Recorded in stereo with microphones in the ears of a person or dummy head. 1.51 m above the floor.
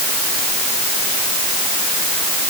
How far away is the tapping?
No tapping in this recording.